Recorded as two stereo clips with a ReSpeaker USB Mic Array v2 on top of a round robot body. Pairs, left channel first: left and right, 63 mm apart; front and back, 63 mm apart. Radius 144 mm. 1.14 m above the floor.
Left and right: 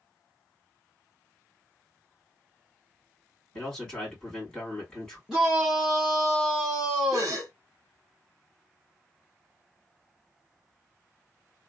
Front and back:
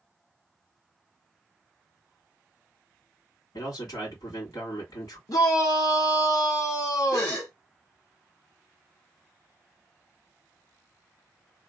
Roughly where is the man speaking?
Ahead.